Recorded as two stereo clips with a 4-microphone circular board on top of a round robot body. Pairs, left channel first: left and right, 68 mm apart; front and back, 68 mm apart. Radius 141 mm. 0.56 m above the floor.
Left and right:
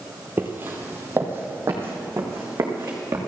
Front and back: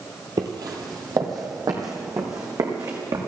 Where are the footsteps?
155° right, 0.8 m; by 3.2 s 145° right, 3 m.